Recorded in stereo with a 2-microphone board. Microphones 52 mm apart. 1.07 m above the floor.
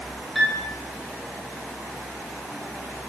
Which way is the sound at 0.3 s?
Centre (ahead or behind).